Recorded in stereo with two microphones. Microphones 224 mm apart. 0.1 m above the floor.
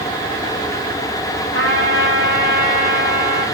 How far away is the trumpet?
About 7 m.